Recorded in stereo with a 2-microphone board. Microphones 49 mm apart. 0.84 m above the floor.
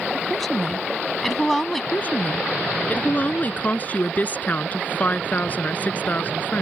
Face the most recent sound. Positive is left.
turn(degrees=30)  # may be behind; listen again after turning